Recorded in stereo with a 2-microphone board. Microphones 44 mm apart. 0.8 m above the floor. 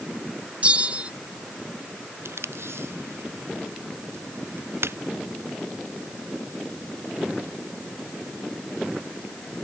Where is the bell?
35° right (ahead or behind).